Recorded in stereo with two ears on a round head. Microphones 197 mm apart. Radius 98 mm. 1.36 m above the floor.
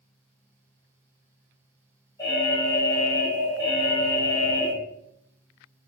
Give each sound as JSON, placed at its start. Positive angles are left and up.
{"t": 2.2, "sound": "an alarm", "side_deg": 15, "distance_m": 4.5}